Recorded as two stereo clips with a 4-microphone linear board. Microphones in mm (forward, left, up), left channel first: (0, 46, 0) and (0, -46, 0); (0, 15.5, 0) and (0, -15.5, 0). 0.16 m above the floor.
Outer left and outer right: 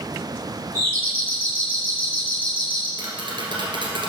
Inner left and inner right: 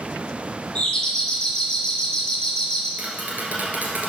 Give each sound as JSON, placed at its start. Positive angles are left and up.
{"t": 0.8, "sound": "a doorbell", "side_deg": 20, "distance_m": 3.0}
{"t": 3.0, "sound": "tapping", "side_deg": -60, "distance_m": 2.0}